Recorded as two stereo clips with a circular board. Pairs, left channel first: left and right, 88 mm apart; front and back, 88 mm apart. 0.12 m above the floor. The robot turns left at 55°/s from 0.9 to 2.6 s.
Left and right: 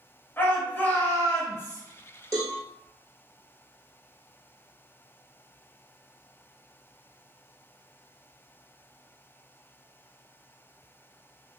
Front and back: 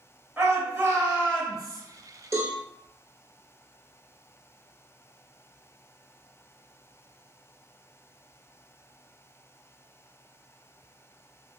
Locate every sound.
0.4 s a shout: 125° left, 1.3 m; by 1.8 s 75° left, 1.3 m
2.3 s a cowbell: 130° right, 1.0 m; by 2.6 s 145° right, 1.0 m